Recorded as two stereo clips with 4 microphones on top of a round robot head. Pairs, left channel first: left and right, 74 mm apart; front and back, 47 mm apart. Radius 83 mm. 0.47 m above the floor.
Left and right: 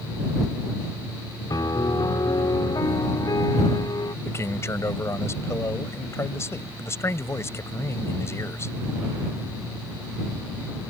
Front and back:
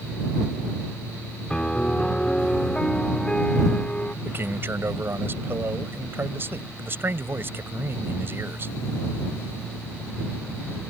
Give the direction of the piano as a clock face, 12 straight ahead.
10 o'clock.